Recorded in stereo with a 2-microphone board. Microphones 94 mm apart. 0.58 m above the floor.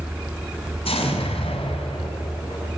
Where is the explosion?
75° left (ahead or behind), 5.5 m.